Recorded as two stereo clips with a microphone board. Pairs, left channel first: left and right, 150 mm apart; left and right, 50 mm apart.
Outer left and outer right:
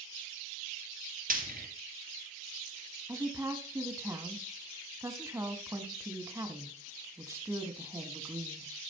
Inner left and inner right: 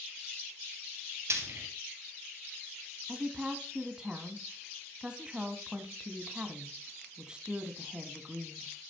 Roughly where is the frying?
Right.